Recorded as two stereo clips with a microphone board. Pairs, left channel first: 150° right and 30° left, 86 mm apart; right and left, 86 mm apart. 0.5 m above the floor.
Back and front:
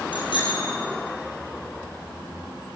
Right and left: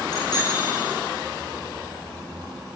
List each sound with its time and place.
0.1 s a bicycle bell: 130° right, 9.5 m